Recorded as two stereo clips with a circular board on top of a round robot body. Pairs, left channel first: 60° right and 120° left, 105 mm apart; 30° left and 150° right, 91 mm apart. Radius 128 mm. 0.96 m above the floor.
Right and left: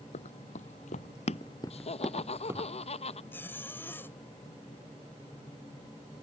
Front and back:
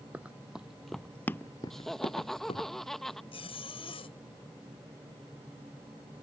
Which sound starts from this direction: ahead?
A zipper, at 3.3 s.